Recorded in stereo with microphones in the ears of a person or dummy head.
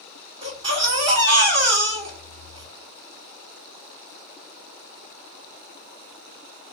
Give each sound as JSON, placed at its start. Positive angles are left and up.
{"t": 0.4, "sound": "a baby crying", "side_deg": -30, "distance_m": 1.8}